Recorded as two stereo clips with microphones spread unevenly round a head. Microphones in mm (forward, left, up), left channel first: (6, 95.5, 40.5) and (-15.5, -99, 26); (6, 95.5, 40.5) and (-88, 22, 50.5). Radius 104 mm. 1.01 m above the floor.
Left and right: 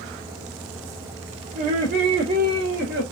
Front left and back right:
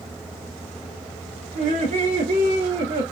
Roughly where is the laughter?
Behind right.